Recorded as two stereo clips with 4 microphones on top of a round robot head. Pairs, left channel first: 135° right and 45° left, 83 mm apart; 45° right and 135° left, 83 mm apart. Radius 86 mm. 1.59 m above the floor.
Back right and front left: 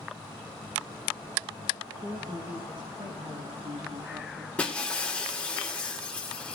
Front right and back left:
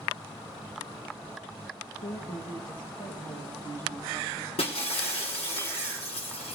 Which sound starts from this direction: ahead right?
Breaking glass, at 4.6 s.